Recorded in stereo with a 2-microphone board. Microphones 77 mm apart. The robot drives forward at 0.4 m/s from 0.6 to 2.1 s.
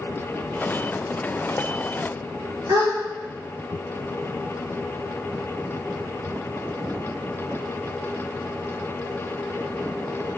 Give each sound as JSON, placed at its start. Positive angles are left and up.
{"t": 2.7, "sound": "a gasp", "side_deg": -75, "distance_m": 3.5}